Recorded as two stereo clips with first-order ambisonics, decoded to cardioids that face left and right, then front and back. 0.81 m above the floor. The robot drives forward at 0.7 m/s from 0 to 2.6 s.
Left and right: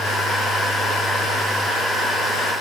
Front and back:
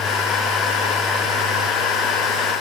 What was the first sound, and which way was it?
Only background noise.